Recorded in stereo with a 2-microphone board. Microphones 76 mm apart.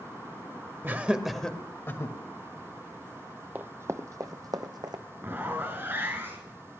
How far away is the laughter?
About 1.2 m.